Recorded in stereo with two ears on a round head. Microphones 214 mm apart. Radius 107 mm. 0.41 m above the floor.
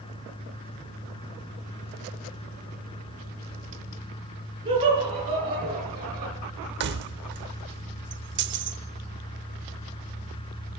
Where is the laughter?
20° right (ahead or behind), 6 m.